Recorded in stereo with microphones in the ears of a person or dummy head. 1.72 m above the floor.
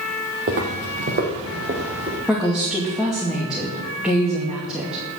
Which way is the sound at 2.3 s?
5° right (ahead or behind).